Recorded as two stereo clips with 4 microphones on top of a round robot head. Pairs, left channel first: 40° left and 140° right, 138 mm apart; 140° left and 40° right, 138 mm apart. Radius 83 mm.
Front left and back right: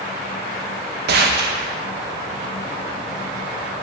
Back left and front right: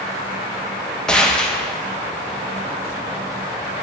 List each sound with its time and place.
1.1 s a gunshot: 135° right, 1.2 m